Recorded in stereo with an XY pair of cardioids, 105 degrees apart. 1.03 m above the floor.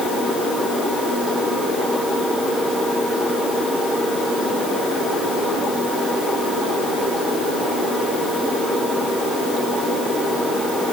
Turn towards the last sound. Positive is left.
No sound to turn to.